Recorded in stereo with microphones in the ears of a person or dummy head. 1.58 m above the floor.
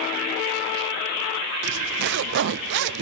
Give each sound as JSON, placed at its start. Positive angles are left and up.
{"t": 1.6, "sound": "a zipper", "side_deg": -60, "distance_m": 0.5}